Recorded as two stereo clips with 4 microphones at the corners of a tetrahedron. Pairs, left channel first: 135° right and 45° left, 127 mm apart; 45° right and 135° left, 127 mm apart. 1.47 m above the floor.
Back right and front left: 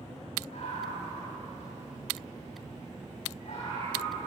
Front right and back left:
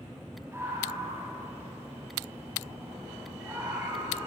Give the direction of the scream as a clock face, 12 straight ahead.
5 o'clock.